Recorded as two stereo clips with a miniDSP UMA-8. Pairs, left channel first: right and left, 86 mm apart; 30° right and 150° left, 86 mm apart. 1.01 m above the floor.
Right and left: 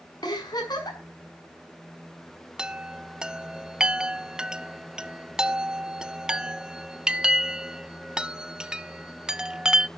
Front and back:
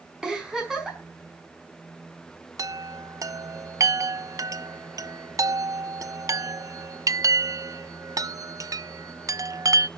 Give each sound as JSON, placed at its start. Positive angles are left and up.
{"t": 0.2, "sound": "a giggle", "azimuth_deg": -125, "distance_m": 6.0}
{"t": 2.6, "sound": "a chime", "azimuth_deg": 170, "distance_m": 0.5}